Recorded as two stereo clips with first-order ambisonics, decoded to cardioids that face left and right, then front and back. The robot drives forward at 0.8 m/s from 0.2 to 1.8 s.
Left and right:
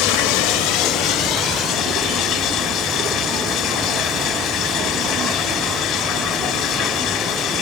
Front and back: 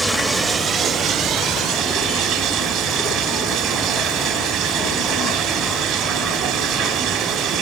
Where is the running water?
95° left, 1.0 m; by 7.6 s 145° left, 1.7 m.